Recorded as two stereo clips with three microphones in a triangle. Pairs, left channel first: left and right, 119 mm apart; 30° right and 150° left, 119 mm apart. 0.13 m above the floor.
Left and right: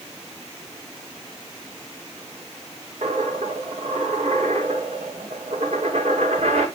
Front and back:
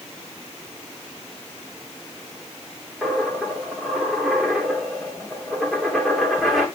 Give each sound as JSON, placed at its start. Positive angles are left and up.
{"t": 3.0, "sound": "a dropped coin", "azimuth_deg": -120, "distance_m": 4.5}